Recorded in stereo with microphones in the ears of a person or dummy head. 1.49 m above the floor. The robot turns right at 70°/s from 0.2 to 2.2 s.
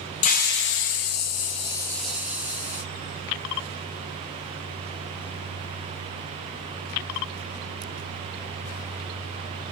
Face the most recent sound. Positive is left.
turn(degrees=-170)